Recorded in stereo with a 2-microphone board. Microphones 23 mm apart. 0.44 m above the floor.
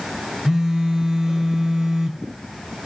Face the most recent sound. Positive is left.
turn(degrees=-25)  # may be behind; listen again after turning